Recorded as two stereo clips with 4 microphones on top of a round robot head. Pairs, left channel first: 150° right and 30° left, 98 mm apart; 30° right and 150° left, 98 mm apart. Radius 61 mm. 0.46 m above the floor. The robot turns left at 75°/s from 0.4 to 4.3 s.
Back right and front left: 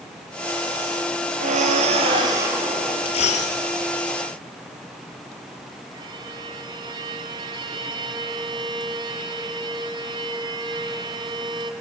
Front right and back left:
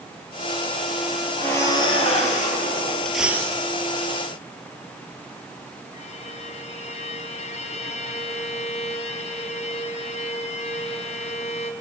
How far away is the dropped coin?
About 4 m.